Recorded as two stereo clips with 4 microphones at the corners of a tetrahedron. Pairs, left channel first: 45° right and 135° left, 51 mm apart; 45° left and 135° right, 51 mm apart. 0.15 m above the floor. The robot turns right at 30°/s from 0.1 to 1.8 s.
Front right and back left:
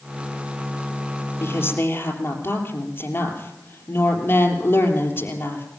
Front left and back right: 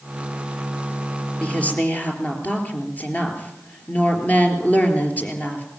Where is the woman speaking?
20° right, 3.5 m; by 5.7 s 5° right, 3.5 m.